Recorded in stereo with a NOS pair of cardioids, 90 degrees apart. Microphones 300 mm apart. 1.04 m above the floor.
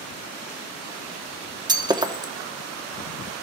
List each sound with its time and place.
1.7 s breaking glass: 15° right, 1.0 m